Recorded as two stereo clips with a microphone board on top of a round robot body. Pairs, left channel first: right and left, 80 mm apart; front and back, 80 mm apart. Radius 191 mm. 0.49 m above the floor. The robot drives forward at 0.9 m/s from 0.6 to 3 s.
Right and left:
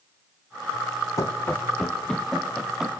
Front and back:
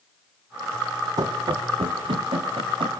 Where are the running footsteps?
140° right, 1.9 m; by 2.9 s 175° left, 5 m.